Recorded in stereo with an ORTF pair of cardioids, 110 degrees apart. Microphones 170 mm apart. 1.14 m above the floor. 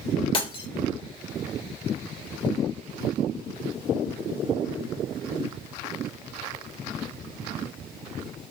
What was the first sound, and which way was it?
Breaking glass, 30° left.